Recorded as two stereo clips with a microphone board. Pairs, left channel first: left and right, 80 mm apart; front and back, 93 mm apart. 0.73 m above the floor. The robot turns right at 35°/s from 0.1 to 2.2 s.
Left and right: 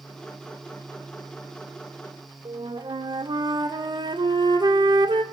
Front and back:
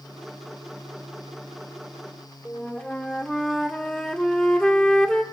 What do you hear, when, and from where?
2.5 s a flute: 80° right, 1.5 m